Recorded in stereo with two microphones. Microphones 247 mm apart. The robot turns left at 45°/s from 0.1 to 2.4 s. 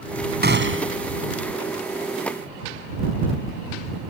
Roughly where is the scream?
No scream in this recording.